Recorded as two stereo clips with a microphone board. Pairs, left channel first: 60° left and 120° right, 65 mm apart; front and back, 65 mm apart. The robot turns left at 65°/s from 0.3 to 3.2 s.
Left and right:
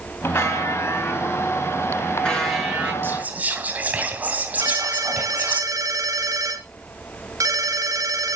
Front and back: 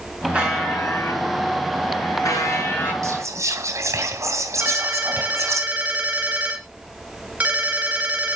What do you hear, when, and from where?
0.3 s a buzzer: 110° left, 5 m; by 2.9 s 60° right, 5 m
3.0 s whispering: 165° right, 2 m; by 5.6 s 175° right, 2 m
4.6 s a ringtone: 115° right, 3 m